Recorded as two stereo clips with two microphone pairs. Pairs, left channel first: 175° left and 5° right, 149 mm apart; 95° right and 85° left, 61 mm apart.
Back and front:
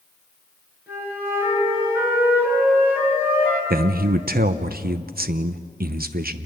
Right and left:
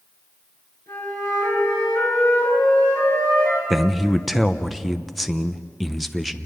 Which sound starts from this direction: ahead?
A man speaking, at 3.7 s.